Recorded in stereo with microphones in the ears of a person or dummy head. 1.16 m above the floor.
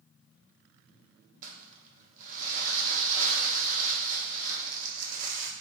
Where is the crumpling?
40° right (ahead or behind), 0.7 m.